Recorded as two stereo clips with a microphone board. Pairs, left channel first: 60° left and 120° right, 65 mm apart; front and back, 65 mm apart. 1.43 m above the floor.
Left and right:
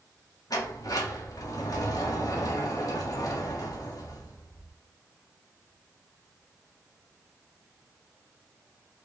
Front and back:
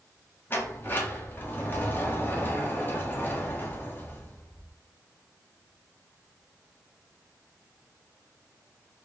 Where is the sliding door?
55° left, 1.7 m.